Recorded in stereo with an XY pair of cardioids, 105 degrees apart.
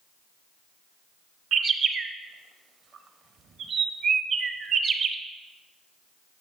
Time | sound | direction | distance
1.5 | a bird | 55° right | 0.7 m